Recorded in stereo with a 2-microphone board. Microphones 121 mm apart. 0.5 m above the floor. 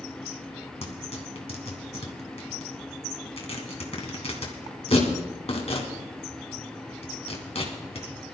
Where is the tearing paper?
60° left (ahead or behind), 2.5 m.